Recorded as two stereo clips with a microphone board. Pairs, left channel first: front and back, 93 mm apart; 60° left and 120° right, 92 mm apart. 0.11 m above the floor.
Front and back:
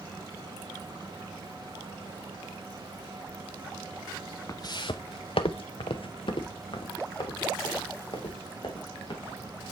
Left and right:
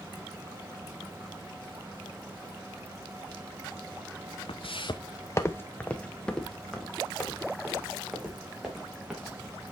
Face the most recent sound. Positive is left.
turn(degrees=-40)